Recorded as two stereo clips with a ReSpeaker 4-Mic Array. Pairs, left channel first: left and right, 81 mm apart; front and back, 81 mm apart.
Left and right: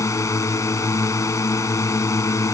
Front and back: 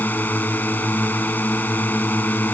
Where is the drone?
60° left.